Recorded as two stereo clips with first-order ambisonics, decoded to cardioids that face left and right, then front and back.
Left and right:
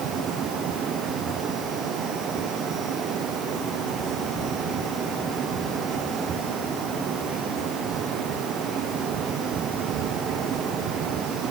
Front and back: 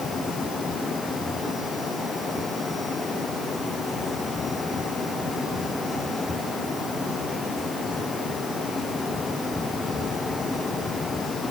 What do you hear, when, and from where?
Only background noise.